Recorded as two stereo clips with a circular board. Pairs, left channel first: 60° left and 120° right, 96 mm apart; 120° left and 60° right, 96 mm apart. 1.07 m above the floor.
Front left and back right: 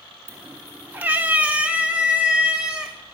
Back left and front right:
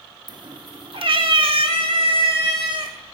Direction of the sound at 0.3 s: 70° right.